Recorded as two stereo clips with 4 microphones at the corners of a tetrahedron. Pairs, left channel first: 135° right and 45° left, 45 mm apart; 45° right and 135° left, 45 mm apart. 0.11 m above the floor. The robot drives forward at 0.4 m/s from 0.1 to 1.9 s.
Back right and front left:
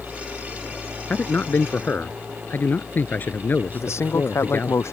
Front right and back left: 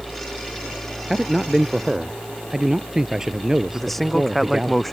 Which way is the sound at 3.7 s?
130° right.